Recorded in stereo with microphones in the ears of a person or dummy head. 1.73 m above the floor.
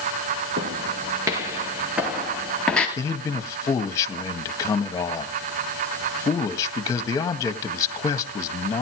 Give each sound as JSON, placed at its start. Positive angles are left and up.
{"t": 0.6, "sound": "footsteps", "side_deg": -25, "distance_m": 2.0}
{"t": 3.0, "sound": "a man speaking", "side_deg": 15, "distance_m": 1.7}